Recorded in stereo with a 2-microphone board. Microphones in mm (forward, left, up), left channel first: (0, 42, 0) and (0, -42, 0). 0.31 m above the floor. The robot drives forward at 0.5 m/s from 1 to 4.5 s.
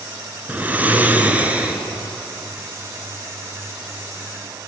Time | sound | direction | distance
0.5 | snoring | 20° right (ahead or behind) | 1.8 m